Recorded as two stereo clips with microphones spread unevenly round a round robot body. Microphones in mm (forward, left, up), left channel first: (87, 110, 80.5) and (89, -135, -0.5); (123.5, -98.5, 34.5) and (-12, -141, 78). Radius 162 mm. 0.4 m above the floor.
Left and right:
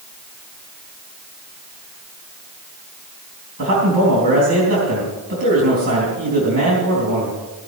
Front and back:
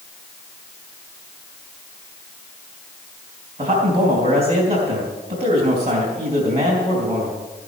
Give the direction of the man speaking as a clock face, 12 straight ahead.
4 o'clock.